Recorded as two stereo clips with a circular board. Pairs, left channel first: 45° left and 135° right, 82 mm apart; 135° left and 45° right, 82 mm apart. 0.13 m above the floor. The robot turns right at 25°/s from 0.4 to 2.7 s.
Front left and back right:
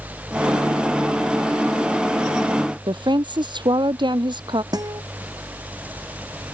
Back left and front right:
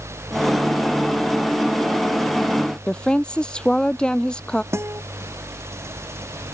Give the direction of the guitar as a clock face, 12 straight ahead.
3 o'clock.